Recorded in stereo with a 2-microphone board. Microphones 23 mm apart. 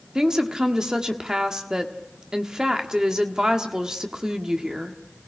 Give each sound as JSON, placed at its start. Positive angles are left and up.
{"t": 0.1, "sound": "a woman speaking", "side_deg": -25, "distance_m": 1.5}